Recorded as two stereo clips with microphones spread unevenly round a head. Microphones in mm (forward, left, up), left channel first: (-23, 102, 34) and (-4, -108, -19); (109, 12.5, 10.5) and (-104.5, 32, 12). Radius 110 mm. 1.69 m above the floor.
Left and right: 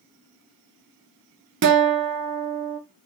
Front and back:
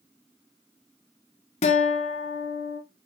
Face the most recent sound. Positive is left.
turn(degrees=-55)